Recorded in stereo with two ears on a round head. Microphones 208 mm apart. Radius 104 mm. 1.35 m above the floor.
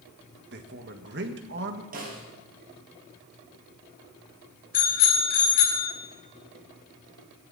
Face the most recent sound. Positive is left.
turn(degrees=40)  # may be behind; listen again after turning